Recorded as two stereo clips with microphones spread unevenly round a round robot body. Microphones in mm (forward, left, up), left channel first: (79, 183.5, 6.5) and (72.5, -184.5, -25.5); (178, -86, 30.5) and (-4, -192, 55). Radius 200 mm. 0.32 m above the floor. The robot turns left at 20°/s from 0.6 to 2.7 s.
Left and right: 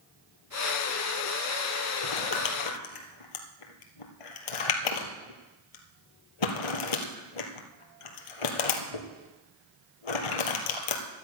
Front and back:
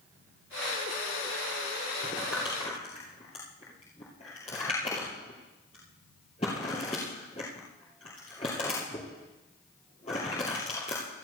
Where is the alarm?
No alarm in this recording.